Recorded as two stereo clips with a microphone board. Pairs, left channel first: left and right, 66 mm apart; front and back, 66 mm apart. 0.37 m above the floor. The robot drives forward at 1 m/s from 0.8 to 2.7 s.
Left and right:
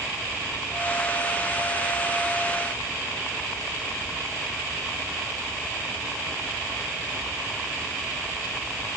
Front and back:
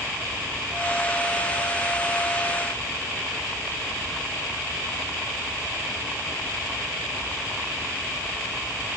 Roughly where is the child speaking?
I don't hear a child speaking.